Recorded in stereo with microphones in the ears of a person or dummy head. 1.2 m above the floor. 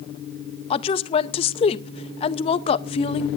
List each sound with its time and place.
0.7 s a woman speaking: 25° left (ahead or behind), 0.6 m